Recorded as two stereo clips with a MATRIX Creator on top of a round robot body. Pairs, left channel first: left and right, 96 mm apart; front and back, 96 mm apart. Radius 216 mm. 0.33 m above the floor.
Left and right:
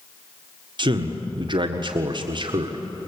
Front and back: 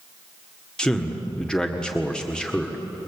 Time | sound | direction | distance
0.8 | a man speaking | 80° right | 1.8 m